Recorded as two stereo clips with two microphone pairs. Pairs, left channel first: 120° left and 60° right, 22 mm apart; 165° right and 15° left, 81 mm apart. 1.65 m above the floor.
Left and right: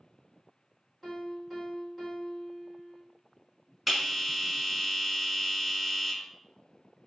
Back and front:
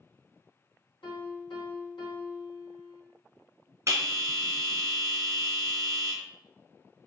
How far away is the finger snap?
No finger snap in this recording.